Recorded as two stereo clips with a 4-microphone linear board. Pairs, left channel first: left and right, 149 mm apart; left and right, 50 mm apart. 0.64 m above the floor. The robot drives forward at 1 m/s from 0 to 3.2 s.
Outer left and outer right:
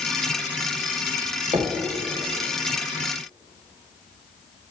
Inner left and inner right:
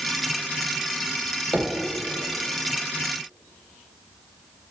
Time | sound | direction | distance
1.5 | knocking | 40° right (ahead or behind) | 1.4 m